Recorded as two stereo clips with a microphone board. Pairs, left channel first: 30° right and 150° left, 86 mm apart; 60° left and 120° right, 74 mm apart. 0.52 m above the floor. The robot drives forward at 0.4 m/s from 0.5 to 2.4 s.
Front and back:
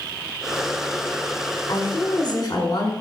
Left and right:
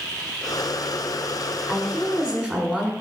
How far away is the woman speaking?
About 1.9 m.